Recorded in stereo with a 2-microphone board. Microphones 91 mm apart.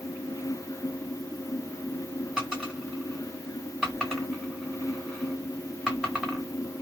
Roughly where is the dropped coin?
Centre.